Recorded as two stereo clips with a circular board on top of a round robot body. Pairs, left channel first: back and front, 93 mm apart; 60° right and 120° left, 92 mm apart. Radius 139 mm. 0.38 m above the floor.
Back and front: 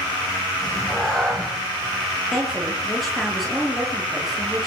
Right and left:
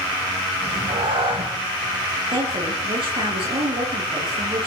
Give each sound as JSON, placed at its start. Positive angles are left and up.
{"t": 0.6, "sound": "a cat meowing", "azimuth_deg": 95, "distance_m": 8.0}
{"t": 2.3, "sound": "a woman speaking", "azimuth_deg": 90, "distance_m": 9.0}